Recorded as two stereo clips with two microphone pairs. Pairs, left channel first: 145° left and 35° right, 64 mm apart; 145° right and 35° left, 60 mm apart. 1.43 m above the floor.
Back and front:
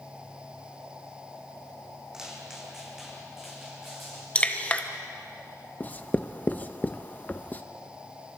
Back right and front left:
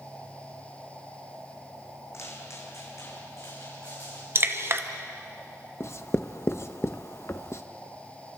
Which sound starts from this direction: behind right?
Writing, at 5.8 s.